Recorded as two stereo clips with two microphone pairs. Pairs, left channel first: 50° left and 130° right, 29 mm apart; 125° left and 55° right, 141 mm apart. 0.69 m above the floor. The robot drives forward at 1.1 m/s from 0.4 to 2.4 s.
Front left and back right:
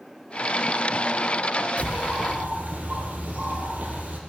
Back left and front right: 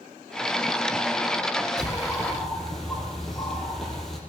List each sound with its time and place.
1.8 s a bird: 140° right, 3 m; by 4.2 s 145° right, 3.5 m